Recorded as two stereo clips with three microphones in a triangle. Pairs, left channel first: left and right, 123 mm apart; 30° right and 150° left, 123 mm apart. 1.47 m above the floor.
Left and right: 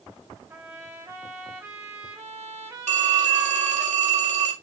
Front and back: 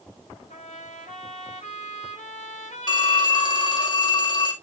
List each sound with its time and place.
0.5 s a trumpet: 20° right, 5 m
2.9 s a phone ringing: 80° right, 1.8 m